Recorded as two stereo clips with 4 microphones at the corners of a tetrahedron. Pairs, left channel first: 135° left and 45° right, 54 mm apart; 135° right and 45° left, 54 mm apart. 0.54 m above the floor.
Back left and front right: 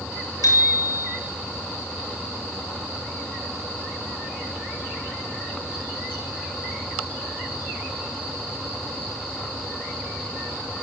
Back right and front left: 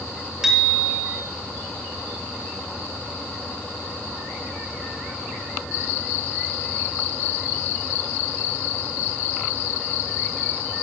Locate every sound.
0.4 s a bicycle bell: 125° left, 7.5 m